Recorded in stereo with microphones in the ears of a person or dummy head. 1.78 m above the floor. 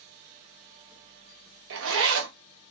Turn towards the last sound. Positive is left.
turn(degrees=-75)  # may be behind; listen again after turning